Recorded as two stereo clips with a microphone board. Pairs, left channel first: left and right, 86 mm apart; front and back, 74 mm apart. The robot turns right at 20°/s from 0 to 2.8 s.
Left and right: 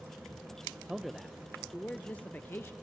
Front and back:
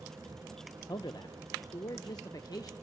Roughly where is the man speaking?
Ahead.